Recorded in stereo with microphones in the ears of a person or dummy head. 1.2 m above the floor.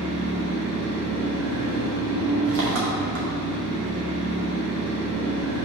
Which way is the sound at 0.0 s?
70° right (ahead or behind).